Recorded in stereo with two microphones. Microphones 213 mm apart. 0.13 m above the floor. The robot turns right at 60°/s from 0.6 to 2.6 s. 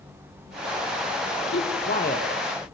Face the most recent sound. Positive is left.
turn(degrees=15)  # may be behind; listen again after turning